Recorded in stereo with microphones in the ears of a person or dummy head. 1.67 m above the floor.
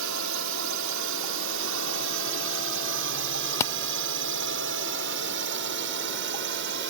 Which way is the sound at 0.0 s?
70° right (ahead or behind).